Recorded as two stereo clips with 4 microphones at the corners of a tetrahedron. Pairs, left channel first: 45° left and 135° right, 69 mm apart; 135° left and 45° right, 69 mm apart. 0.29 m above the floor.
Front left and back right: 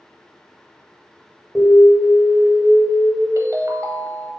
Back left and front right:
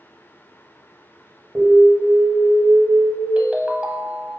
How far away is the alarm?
About 1.6 m.